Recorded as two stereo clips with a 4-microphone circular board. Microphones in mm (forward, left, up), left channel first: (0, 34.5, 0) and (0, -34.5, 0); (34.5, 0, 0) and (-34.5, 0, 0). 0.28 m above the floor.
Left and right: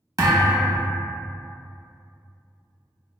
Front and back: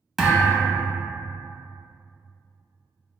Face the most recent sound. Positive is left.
turn(degrees=-90)